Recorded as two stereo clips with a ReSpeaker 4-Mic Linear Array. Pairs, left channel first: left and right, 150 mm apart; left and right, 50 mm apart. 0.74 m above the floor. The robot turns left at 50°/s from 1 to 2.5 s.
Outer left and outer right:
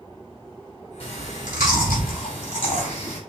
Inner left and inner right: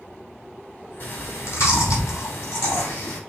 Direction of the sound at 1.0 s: 40° left (ahead or behind).